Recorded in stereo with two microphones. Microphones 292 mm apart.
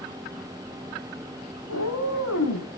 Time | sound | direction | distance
1.7 | a cat meowing | 65° left (ahead or behind) | 5.5 m